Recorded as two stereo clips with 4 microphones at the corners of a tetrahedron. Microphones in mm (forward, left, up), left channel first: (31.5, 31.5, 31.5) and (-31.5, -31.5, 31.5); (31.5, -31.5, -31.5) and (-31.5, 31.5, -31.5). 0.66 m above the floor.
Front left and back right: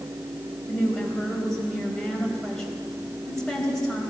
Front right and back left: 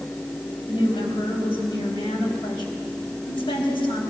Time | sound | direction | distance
0.7 | a woman speaking | 40° right | 3.5 m